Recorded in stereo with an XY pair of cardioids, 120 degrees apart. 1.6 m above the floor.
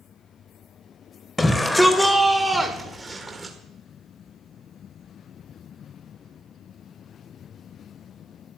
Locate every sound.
1.4 s a shout: 15° left, 1.4 m; by 3.5 s 30° right, 2 m